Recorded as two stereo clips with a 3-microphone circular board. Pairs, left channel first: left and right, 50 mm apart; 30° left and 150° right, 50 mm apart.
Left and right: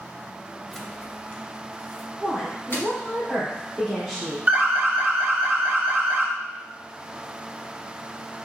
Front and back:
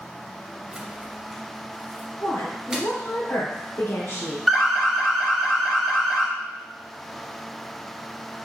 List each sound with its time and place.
0.7 s keys jangling: 175° right, 0.6 m; by 2.9 s 125° left, 2.5 m
2.2 s a woman speaking: 10° left, 2.0 m
4.5 s an alarm: 60° right, 0.9 m